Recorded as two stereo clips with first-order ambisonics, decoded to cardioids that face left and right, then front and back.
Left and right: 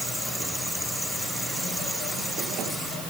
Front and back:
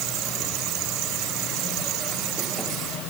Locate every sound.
Only background noise.